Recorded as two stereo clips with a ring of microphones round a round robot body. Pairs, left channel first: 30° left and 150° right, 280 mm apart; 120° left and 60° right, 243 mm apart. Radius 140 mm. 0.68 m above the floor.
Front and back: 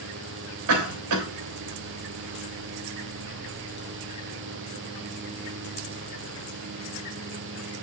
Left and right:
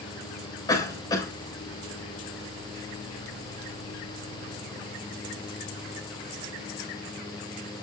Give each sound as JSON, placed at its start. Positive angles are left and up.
{"t": 0.7, "sound": "a cough", "azimuth_deg": -165, "distance_m": 3.5}